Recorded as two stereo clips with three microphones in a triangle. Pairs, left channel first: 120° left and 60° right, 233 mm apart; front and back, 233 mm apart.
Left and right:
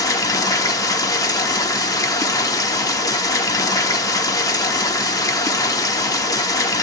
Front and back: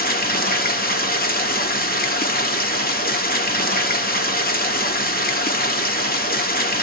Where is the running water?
45° left, 1.0 m.